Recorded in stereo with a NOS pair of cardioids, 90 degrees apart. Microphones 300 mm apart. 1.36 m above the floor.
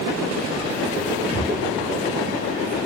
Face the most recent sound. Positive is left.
turn(degrees=-65)